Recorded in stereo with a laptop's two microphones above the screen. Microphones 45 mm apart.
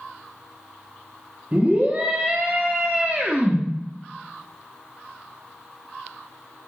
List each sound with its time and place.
1.5 s a scream: 25° right (ahead or behind), 0.9 m